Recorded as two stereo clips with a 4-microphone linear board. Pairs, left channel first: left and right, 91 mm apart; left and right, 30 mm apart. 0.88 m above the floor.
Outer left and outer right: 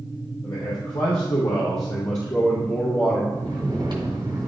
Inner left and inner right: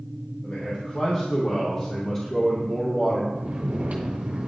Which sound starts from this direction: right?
Snoring, at 3.3 s.